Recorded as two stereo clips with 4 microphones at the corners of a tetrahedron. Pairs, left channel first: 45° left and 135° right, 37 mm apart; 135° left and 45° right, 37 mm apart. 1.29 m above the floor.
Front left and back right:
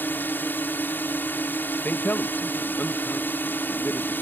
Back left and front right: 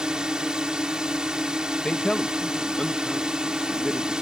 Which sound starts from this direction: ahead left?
A man speaking, at 1.9 s.